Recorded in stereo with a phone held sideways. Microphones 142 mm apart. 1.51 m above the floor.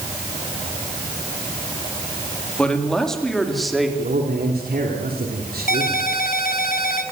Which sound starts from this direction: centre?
A man speaking, at 2.6 s.